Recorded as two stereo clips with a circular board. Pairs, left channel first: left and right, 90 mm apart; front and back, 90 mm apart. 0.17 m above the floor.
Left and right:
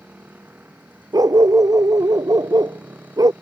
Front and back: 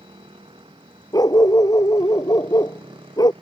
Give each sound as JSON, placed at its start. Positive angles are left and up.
{"t": 0.0, "sound": "a motorcycle", "azimuth_deg": -160}
{"t": 1.1, "sound": "a dog barking", "azimuth_deg": -45}